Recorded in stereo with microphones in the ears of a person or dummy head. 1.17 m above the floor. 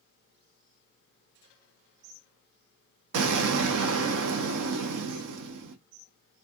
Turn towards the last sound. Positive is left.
turn(degrees=-65)  # may be behind; listen again after turning